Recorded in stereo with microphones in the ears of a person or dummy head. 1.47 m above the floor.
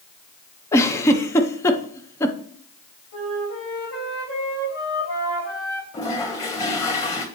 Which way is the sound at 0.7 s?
10° left (ahead or behind).